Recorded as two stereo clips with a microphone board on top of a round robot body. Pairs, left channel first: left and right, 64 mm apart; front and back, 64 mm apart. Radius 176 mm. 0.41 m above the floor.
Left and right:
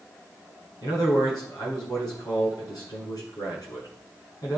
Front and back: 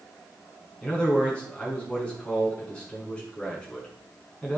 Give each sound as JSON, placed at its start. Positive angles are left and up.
{"t": 0.8, "sound": "a man speaking", "azimuth_deg": 75, "distance_m": 7.0}